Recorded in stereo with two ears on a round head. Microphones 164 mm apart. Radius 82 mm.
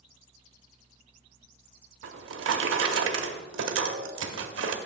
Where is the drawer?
75° right (ahead or behind), 0.7 m.